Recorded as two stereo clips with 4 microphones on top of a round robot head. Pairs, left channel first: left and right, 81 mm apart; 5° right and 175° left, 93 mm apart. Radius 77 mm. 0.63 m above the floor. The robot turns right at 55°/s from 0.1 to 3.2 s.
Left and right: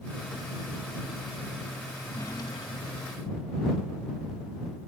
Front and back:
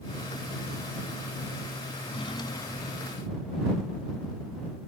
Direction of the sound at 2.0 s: 15° left.